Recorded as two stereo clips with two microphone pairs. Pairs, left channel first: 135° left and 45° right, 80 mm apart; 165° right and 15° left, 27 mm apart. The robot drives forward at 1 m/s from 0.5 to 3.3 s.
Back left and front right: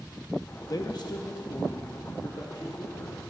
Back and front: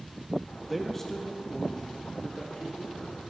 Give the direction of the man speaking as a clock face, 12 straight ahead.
9 o'clock.